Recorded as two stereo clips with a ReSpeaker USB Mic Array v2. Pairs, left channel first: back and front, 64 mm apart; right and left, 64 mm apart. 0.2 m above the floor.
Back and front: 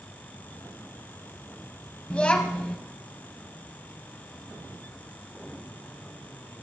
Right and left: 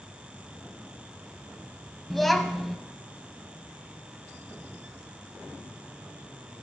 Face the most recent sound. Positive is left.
turn(degrees=-175)